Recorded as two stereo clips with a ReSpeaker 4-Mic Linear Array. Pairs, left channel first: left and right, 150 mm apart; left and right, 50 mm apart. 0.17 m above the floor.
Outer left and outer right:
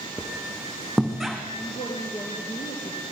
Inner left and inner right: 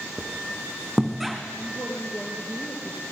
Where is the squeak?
Centre (ahead or behind), 4 m.